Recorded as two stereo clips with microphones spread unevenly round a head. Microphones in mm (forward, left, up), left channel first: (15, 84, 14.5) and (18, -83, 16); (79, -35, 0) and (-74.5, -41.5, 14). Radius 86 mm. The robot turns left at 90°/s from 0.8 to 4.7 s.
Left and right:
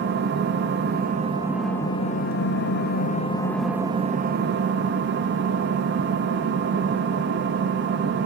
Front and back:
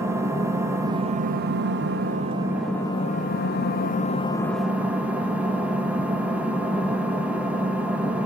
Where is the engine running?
105° right, 0.8 m; by 8.3 s 95° right, 0.8 m.